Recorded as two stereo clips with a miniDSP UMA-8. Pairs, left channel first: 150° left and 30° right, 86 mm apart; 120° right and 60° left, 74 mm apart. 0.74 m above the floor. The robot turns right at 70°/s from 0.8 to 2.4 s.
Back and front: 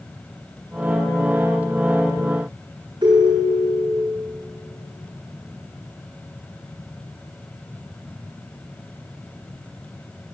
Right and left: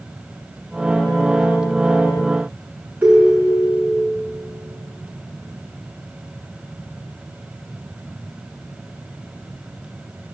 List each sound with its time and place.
3.0 s a ringtone: 10° right, 5 m